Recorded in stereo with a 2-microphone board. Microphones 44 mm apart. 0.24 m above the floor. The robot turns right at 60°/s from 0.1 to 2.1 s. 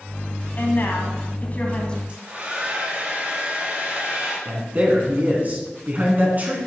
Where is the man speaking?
35° right (ahead or behind), 2.5 m.